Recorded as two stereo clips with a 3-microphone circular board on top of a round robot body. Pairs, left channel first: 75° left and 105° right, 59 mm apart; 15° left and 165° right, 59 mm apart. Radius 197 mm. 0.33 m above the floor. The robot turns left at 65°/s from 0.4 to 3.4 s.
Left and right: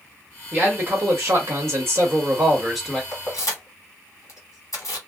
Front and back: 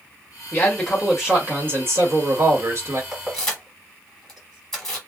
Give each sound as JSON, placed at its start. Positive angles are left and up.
{"t": 0.5, "sound": "a man speaking", "azimuth_deg": -45, "distance_m": 1.3}
{"t": 3.1, "sound": "keys jangling", "azimuth_deg": 115, "distance_m": 1.6}